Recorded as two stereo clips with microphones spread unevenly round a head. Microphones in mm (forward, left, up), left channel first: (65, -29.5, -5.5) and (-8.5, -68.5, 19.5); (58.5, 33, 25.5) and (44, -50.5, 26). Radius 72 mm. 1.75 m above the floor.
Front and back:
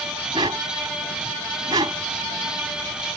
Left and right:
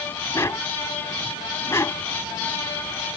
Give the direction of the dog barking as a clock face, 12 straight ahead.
7 o'clock.